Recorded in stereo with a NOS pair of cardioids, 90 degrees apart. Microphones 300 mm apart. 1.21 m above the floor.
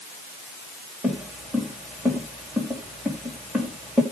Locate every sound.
1.0 s footsteps: straight ahead, 5 m